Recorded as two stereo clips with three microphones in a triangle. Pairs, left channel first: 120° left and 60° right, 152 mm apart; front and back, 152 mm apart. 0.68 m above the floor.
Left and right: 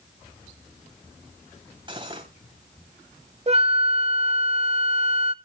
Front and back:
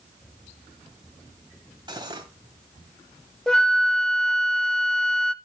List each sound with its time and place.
1.9 s cutlery clinking: 120° right, 2.5 m
3.5 s a flute: 85° right, 0.6 m